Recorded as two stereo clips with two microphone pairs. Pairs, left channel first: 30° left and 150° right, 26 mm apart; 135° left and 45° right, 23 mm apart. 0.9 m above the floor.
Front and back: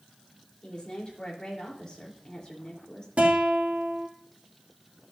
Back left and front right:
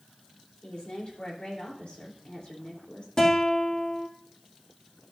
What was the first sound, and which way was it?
A woman speaking, 95° left.